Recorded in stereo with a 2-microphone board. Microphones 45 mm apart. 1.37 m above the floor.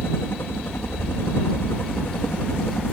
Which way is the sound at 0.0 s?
60° left (ahead or behind).